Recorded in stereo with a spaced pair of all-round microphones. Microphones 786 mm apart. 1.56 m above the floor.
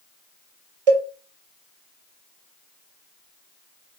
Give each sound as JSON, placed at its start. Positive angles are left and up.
{"t": 0.9, "sound": "a cowbell", "side_deg": -45, "distance_m": 1.1}